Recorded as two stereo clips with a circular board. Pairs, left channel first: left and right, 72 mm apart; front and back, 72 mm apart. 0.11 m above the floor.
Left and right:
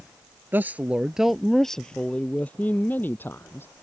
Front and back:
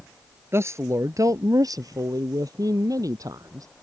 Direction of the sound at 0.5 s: 140° right.